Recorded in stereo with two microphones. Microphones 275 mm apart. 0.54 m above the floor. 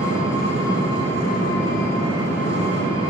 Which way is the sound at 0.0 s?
70° left (ahead or behind).